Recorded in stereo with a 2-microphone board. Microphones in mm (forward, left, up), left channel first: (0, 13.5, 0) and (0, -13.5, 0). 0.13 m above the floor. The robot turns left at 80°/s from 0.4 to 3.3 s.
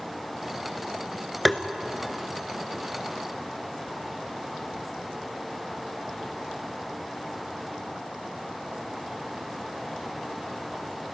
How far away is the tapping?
About 1.1 m.